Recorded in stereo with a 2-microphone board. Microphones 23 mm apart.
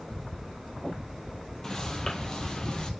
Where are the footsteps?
25° left (ahead or behind), 1.8 m; by 2.9 s 35° left (ahead or behind), 1.9 m.